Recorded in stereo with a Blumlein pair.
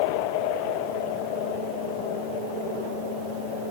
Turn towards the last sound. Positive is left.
No sound to turn to.